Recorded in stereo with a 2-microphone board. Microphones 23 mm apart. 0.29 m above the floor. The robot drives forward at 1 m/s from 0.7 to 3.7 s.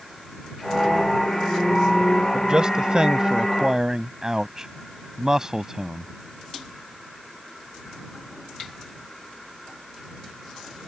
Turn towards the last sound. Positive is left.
turn(degrees=-25)  # may be behind; listen again after turning